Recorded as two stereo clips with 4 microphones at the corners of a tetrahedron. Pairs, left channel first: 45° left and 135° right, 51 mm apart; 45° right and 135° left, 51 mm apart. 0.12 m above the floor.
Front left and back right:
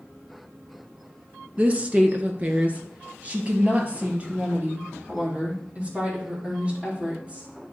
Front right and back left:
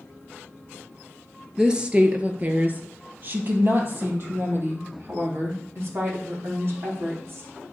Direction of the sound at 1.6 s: 160° right.